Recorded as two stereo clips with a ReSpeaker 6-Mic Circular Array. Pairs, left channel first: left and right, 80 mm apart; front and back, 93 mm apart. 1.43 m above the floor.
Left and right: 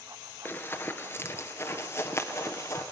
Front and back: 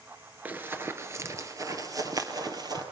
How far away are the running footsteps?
About 1.5 m.